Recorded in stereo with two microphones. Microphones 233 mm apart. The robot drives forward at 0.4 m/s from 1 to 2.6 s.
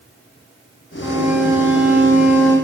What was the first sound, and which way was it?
A violin, 10° right (ahead or behind).